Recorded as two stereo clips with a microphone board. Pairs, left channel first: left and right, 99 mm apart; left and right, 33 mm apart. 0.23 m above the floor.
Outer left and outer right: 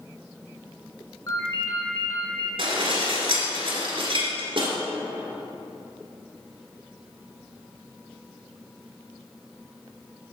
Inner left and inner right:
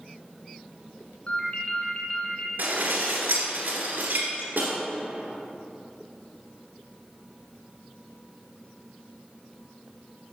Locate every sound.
1.3 s a ringtone: 35° left (ahead or behind), 2.0 m
2.6 s dishes clattering: 65° right (ahead or behind), 2 m